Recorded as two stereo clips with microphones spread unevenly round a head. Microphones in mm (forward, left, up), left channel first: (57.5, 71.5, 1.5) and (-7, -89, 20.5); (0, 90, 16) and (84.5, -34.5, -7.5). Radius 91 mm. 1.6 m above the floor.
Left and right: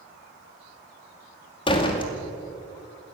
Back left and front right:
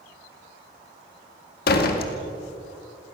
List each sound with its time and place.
1.7 s a door slam: 135° left, 2 m